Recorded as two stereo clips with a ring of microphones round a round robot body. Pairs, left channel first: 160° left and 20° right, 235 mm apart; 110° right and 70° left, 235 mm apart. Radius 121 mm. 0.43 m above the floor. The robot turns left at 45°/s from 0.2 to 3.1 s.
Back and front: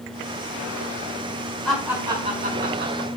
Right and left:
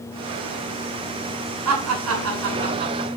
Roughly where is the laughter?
Left.